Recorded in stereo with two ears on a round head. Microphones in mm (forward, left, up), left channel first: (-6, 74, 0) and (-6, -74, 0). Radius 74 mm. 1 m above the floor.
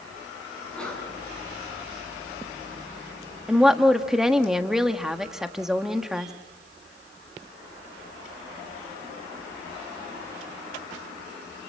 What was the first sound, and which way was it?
A sneeze, 5° left (ahead or behind).